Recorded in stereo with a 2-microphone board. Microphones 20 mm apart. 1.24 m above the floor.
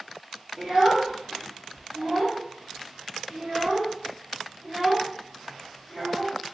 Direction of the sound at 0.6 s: 25° right (ahead or behind).